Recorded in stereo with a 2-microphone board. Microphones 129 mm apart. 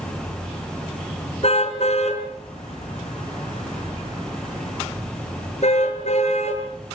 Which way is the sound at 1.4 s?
55° left (ahead or behind).